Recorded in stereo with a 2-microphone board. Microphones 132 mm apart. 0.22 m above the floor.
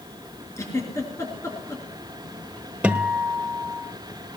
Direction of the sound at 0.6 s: 25° left (ahead or behind).